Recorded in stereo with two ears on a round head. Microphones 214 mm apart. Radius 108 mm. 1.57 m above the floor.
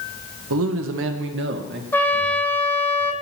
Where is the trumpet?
10° left (ahead or behind), 0.8 m.